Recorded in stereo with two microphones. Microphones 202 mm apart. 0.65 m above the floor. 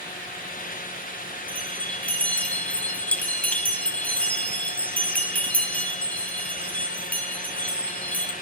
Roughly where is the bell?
Centre.